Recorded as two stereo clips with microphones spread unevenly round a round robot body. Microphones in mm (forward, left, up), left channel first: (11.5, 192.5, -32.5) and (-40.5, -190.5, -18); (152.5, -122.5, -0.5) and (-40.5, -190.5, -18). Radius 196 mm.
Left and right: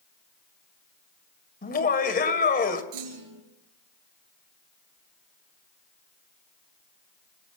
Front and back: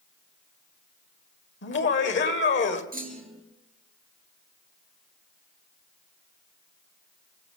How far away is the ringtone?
No ringtone in this recording.